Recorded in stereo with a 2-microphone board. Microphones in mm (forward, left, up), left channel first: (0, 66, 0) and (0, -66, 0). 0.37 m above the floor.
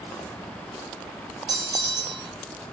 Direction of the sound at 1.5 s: 30° right (ahead or behind).